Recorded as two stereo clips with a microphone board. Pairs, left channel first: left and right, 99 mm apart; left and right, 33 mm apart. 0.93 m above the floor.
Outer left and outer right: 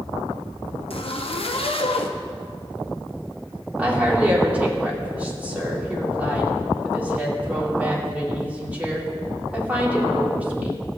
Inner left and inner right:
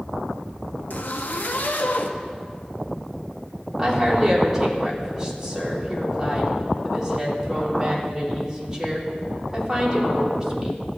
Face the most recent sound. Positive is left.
turn(degrees=-15)  # may be behind; listen again after turning